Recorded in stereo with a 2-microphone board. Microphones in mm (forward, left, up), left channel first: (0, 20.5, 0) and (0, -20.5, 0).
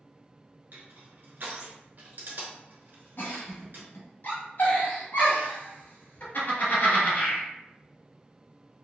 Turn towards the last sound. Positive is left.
turn(degrees=55)  # may be behind; listen again after turning